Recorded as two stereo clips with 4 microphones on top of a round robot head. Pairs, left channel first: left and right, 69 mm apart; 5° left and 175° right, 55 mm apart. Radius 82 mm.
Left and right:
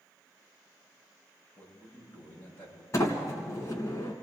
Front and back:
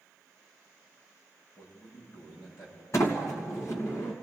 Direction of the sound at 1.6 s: 25° left.